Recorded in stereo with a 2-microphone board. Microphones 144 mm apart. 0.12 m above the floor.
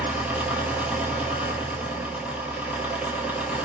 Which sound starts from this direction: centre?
An engine running, at 0.0 s.